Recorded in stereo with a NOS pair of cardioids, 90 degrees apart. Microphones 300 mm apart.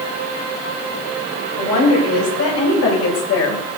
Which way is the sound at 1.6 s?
55° left.